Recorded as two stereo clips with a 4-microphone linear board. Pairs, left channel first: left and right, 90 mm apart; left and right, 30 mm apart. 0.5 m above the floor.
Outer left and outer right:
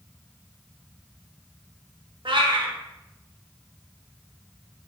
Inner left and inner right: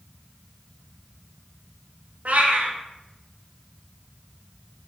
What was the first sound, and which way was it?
A cat meowing, 65° right (ahead or behind).